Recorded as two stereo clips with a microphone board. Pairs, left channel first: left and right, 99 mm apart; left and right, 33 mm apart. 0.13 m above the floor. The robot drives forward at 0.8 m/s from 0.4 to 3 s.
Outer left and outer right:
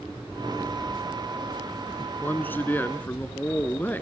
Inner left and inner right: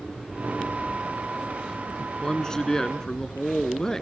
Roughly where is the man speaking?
Centre.